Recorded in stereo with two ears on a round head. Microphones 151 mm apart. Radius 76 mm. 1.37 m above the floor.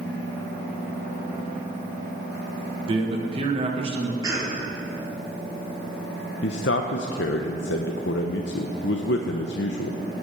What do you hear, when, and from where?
2.9 s a man speaking: 35° right (ahead or behind), 1.5 m
4.2 s a cough: 25° right (ahead or behind), 3.5 m
6.4 s a man speaking: 80° left, 0.8 m